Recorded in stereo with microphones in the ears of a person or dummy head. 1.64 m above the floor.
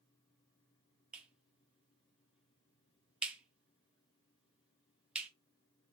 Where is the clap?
5° right (ahead or behind), 0.9 m.